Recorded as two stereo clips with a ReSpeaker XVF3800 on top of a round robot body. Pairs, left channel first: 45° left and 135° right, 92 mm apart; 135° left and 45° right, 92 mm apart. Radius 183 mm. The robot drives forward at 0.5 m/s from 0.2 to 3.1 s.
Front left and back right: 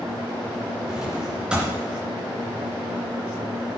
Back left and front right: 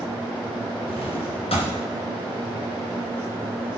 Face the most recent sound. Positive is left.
turn(degrees=155)